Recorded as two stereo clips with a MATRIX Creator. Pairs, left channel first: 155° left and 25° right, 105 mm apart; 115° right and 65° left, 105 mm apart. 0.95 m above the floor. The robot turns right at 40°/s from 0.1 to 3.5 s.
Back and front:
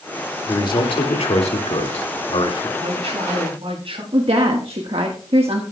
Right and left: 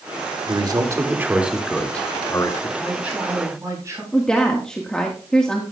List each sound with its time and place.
0.5 s a man speaking: 105° left, 2 m; by 2.7 s 165° right, 2 m
2.8 s a man speaking: 25° right, 8.5 m; by 4.0 s 5° left, 8.5 m
4.1 s a woman speaking: 30° right, 1.4 m